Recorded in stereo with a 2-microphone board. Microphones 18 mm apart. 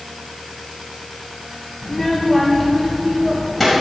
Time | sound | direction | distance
1.8 | a child speaking | 35° left (ahead or behind) | 1.8 m